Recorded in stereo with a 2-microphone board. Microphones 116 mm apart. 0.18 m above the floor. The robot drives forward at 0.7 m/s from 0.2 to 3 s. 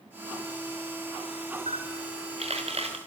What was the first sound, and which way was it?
A camera shutter, 70° right (ahead or behind).